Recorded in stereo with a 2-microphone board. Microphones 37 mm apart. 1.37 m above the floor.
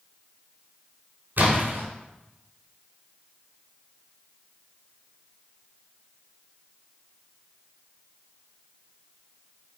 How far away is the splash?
About 3.5 m.